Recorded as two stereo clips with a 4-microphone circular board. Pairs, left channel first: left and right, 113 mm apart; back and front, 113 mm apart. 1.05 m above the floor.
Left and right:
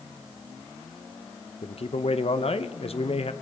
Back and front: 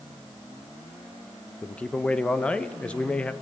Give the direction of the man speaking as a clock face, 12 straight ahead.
9 o'clock.